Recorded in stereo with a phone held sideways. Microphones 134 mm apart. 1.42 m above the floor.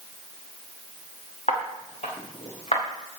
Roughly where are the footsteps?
Left.